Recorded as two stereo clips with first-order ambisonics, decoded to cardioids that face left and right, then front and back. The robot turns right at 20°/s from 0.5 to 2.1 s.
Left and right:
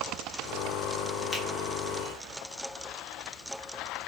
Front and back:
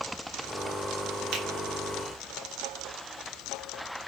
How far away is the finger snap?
About 0.8 m.